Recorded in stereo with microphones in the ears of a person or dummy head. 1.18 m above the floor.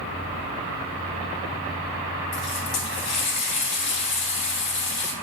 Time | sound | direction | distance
2.3 | a running tap | 60° left (ahead or behind) | 2.5 m